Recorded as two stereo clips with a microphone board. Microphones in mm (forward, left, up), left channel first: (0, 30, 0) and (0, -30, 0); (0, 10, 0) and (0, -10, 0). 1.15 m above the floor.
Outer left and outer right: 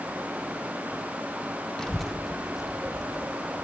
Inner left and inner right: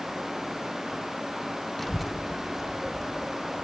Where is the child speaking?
10° left (ahead or behind), 0.6 m; by 3.6 s 10° right (ahead or behind), 2.5 m.